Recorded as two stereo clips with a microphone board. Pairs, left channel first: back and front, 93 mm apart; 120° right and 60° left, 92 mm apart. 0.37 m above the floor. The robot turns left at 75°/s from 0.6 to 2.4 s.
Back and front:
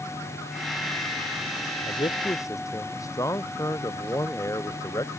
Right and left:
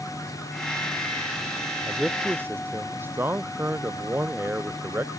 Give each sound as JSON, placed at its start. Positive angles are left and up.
{"t": 1.9, "sound": "a man speaking", "azimuth_deg": 165}